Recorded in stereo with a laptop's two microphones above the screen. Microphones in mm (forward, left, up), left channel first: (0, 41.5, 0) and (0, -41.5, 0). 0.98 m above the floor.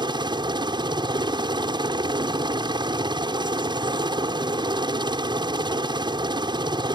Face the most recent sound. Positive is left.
turn(degrees=-65)  # may be behind; listen again after turning